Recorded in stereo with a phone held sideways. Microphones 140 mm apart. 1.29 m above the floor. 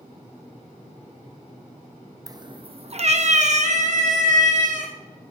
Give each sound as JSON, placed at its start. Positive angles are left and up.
{"t": 2.3, "sound": "a cat meowing", "side_deg": -25, "distance_m": 0.5}